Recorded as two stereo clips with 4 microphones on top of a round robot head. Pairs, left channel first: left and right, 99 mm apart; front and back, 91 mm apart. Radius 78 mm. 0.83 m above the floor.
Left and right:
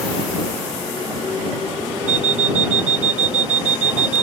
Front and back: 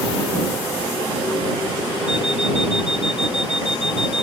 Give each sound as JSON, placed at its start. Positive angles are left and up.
{"t": 2.1, "sound": "an alarm clock", "azimuth_deg": -90}